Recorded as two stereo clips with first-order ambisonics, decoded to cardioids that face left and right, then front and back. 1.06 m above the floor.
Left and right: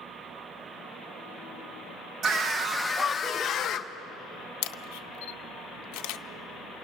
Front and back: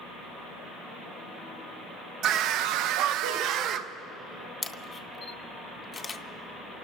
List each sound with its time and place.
2.2 s a scream: 145° right, 0.8 m; by 3.9 s 140° left, 1.1 m
4.6 s a camera shutter: 75° left, 0.5 m